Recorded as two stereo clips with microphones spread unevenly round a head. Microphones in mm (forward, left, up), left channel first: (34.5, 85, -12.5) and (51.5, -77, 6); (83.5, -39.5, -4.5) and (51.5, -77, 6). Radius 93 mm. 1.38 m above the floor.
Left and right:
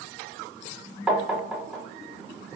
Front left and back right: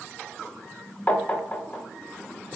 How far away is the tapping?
About 0.6 m.